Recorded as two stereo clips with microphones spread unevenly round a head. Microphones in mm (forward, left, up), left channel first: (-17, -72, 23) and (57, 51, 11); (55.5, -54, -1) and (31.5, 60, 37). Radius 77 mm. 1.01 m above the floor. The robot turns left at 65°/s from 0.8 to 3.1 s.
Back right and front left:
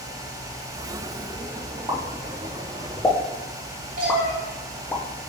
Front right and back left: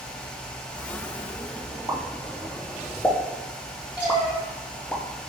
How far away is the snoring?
No snoring in this recording.